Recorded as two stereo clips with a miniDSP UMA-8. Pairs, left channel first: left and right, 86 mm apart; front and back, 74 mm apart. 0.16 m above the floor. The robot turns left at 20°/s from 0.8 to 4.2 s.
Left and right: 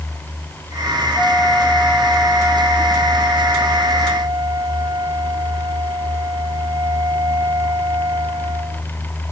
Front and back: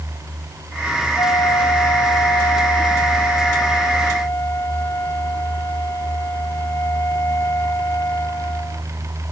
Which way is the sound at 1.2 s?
10° left.